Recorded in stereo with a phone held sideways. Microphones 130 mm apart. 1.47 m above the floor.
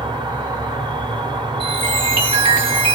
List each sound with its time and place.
0.0 s an insect: 35° right (ahead or behind), 1.0 m
1.6 s a chime: 40° right (ahead or behind), 2.5 m